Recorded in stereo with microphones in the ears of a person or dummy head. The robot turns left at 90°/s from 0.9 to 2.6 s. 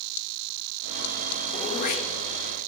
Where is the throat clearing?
30° left (ahead or behind), 1.3 m; by 2.7 s 45° left (ahead or behind), 1.3 m.